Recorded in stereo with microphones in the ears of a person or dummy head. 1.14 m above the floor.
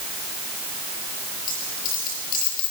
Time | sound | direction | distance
1.5 | a dropped coin | 50° left (ahead or behind) | 5 m